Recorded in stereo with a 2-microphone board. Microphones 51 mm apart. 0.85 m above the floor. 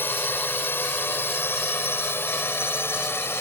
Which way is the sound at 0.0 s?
45° left (ahead or behind).